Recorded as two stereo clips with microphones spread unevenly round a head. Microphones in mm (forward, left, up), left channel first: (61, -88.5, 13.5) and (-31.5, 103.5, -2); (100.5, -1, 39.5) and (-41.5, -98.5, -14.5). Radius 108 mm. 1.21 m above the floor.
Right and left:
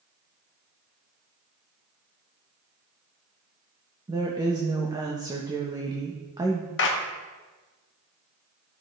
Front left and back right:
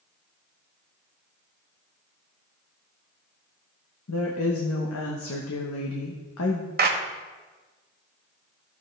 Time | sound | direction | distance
4.1 | a woman speaking | 45° left | 1.1 m
6.8 | a clap | 105° right | 1.1 m